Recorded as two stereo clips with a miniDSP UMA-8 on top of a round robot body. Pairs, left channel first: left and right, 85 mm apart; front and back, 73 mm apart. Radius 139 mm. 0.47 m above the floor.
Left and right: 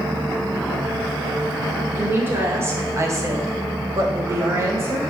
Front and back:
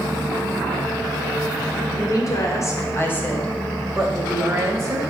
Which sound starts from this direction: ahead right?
A woman speaking, at 1.9 s.